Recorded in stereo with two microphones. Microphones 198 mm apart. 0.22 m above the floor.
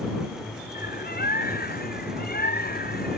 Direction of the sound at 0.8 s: 50° left (ahead or behind).